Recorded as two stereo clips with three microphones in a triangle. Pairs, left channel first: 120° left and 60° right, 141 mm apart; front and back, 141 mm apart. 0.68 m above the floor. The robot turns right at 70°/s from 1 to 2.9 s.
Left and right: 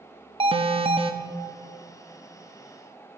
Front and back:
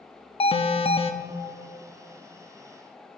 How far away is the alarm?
About 0.6 m.